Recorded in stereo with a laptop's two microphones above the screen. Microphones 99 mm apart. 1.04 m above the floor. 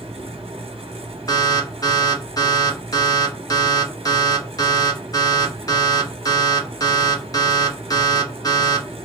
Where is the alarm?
35° left (ahead or behind), 0.9 m.